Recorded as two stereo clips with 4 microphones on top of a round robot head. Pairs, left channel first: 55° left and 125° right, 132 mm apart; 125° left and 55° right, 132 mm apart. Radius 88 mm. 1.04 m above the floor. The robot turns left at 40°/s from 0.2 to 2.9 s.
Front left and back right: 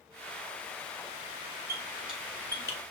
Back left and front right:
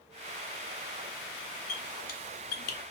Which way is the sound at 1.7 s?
165° left.